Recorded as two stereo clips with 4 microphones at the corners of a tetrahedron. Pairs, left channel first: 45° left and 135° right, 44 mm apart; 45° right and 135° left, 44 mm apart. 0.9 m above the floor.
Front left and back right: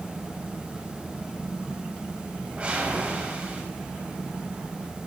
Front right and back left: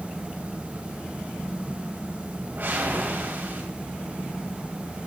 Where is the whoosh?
165° left, 3 m.